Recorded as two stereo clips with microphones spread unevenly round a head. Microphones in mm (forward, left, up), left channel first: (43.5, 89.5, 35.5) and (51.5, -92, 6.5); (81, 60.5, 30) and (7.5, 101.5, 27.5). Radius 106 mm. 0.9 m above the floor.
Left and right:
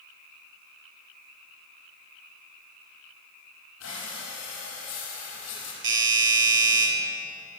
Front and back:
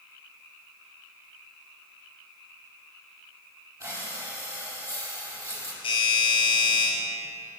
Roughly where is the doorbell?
Right.